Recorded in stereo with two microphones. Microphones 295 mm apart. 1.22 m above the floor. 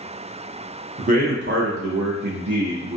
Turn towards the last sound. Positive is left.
turn(degrees=-65)  # may be behind; listen again after turning